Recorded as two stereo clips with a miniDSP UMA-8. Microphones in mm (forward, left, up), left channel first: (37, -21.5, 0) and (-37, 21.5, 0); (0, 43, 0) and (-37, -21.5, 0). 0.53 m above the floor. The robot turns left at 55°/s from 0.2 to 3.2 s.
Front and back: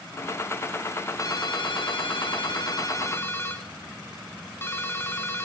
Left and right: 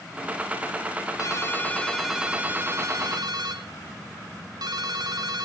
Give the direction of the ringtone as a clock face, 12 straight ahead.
11 o'clock.